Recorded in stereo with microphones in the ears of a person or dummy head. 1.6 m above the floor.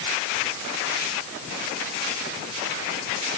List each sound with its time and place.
Only background noise.